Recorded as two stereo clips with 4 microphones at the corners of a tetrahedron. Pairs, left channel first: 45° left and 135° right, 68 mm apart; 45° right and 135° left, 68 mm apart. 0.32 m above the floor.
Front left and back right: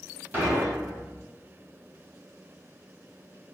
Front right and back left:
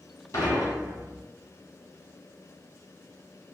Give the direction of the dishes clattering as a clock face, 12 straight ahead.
3 o'clock.